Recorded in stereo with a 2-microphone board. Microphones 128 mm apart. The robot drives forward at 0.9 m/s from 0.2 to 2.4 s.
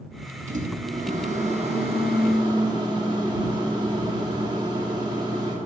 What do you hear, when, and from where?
0.5 s a microwave: 65° right (ahead or behind), 1.2 m; by 5.5 s 35° right (ahead or behind), 1.9 m